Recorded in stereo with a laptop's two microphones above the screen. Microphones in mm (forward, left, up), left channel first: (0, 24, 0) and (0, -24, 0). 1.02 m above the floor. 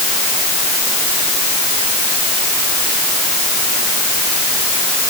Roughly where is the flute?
No flute in this recording.